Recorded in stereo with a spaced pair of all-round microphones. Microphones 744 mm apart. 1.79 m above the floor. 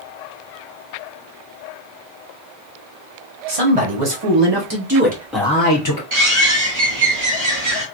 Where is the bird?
60° right (ahead or behind), 1.7 m.